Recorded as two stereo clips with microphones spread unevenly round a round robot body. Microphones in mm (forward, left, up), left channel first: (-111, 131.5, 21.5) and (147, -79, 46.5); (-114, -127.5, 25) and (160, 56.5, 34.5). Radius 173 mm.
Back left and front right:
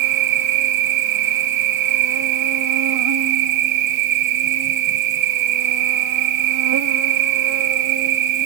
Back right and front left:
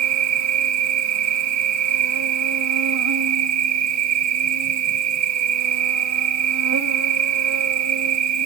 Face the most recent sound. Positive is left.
turn(degrees=-5)